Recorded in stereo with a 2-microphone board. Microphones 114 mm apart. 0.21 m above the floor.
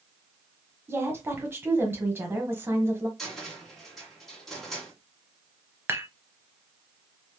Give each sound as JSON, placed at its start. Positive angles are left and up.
{"t": 0.9, "sound": "a woman speaking", "side_deg": -20, "distance_m": 1.1}
{"t": 3.2, "sound": "a cupboard door", "side_deg": 5, "distance_m": 1.6}
{"t": 5.9, "sound": "dishes clattering", "side_deg": -20, "distance_m": 0.7}